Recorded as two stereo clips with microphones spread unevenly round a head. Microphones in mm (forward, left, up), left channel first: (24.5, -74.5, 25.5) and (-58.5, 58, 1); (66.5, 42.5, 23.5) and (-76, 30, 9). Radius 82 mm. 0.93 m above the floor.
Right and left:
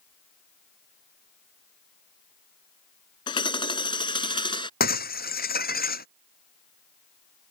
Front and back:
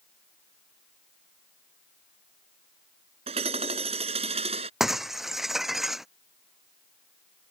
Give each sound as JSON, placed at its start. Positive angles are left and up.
{"t": 3.3, "sound": "hammering", "azimuth_deg": -115}
{"t": 4.8, "sound": "breaking glass", "azimuth_deg": -85}